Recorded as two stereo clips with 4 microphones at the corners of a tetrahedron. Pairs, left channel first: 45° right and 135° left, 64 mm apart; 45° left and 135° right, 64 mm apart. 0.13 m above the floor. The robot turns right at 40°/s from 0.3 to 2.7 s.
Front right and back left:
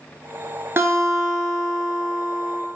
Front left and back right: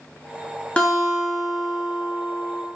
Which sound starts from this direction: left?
A guitar, at 0.8 s.